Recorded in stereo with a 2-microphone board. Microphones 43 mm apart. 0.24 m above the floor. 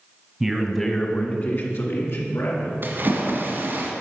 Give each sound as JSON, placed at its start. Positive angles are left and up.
{"t": 0.4, "sound": "a man speaking", "side_deg": -10, "distance_m": 1.5}
{"t": 2.8, "sound": "a splash", "side_deg": -50, "distance_m": 1.9}